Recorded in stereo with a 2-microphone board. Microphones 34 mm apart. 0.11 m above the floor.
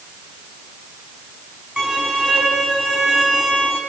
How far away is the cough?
I don't hear a cough.